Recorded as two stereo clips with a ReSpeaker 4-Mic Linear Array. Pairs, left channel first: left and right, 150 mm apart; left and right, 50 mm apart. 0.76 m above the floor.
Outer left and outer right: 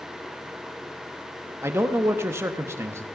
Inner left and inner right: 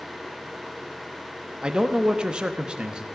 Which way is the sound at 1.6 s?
15° right (ahead or behind).